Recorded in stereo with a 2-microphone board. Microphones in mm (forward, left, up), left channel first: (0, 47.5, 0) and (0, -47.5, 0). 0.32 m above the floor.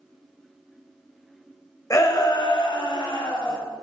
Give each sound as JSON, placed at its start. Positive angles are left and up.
{"t": 1.9, "sound": "a shout", "side_deg": 35, "distance_m": 1.0}